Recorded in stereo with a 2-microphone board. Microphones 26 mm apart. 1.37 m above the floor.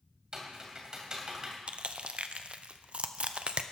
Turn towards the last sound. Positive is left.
turn(degrees=-50)  # may be behind; listen again after turning